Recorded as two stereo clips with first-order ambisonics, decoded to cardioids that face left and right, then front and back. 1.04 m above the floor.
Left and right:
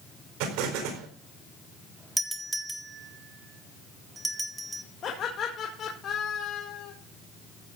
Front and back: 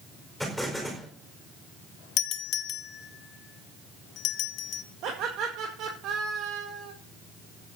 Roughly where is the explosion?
Right.